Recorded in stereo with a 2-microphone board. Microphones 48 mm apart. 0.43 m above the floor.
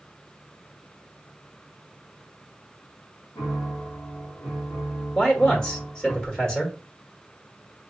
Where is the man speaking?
20° left (ahead or behind), 1.3 m.